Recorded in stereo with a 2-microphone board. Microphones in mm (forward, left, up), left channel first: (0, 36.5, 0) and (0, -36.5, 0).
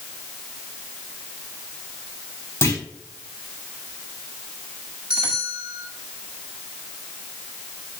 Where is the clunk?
40° left (ahead or behind), 4 m.